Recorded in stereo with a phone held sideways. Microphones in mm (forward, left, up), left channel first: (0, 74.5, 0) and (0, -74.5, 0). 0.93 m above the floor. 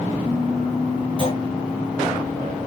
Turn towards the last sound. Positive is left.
turn(degrees=-35)  # may be behind; listen again after turning